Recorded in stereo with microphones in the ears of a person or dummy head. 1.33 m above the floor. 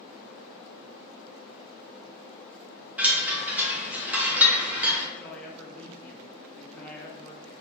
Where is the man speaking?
15° left (ahead or behind), 1.0 m.